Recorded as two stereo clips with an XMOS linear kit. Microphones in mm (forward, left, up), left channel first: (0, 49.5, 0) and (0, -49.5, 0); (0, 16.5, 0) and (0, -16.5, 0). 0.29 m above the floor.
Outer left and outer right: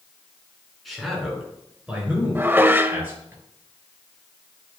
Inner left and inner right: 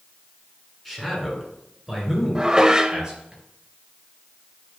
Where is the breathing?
I don't hear breathing.